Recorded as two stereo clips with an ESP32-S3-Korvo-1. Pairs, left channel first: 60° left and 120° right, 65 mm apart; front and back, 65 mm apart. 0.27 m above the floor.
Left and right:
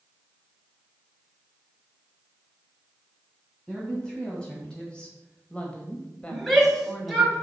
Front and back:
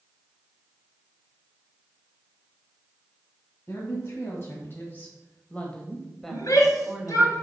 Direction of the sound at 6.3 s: 30° right.